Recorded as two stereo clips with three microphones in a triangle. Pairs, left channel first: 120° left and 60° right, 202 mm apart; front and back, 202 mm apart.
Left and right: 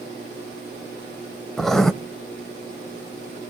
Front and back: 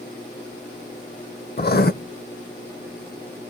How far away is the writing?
About 0.6 m.